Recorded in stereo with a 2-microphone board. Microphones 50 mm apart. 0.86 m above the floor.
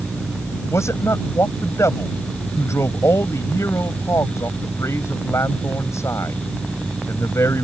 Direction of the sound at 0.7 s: 80° left.